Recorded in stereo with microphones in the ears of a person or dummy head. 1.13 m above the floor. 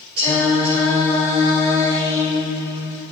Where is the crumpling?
I don't hear crumpling.